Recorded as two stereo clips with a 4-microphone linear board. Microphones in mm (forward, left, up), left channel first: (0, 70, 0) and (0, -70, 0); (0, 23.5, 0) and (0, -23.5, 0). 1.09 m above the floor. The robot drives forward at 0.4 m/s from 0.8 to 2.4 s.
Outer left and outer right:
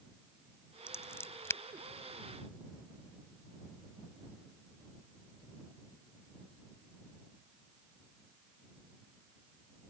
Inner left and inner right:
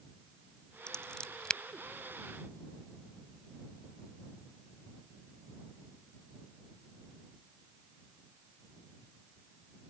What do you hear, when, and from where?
0.9 s scissors: 20° left (ahead or behind)